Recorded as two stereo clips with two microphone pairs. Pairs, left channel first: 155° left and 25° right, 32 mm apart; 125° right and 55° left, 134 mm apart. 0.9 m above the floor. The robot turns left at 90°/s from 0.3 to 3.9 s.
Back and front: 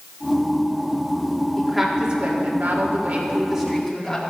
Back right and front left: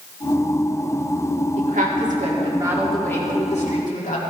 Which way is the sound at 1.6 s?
85° left.